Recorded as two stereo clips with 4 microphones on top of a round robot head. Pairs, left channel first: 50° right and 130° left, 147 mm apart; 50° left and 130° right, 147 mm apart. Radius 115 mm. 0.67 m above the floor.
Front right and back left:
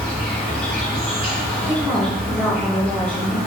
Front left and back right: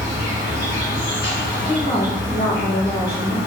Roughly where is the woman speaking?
Ahead.